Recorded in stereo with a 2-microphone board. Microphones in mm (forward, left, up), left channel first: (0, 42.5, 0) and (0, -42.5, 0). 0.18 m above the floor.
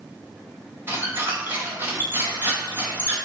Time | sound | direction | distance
0.9 | a squeak | 25° right (ahead or behind) | 2.5 m